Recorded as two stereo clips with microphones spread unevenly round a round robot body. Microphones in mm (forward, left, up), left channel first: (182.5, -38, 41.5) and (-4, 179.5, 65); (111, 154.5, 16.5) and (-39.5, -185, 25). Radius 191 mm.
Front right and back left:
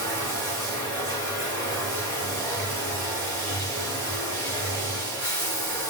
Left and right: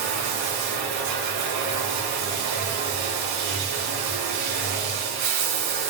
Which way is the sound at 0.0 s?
145° right.